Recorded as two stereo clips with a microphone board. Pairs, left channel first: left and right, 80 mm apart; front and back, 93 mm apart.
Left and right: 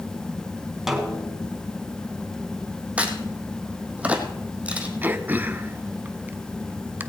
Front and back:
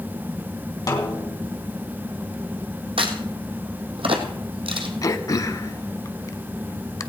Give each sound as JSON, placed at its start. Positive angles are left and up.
{"t": 0.9, "sound": "a snare drum", "azimuth_deg": -5, "distance_m": 2.0}
{"t": 3.0, "sound": "a crack", "azimuth_deg": -165, "distance_m": 1.6}
{"t": 5.0, "sound": "throat clearing", "azimuth_deg": -35, "distance_m": 0.7}